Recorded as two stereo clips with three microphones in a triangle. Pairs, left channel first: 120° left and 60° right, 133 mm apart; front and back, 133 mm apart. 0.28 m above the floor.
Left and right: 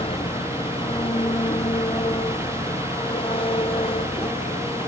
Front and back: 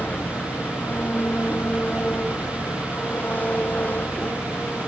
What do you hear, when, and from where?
0.0 s an engine running: 75° left